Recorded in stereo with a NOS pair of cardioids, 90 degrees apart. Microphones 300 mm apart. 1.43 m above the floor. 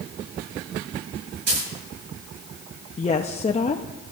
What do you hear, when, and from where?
1.5 s a dropped coin: 60° right, 9 m
3.0 s a woman speaking: 25° left, 0.9 m